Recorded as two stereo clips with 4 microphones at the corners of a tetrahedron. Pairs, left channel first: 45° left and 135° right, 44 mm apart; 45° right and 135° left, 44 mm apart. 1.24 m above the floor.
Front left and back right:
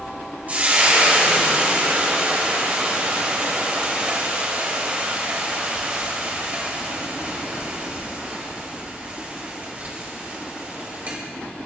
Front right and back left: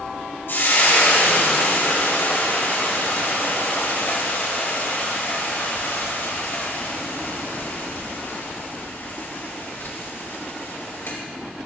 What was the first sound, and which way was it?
Frying, 75° right.